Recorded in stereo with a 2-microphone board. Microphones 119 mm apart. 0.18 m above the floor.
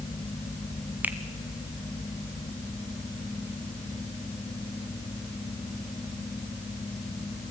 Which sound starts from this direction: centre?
A finger snap, at 1.0 s.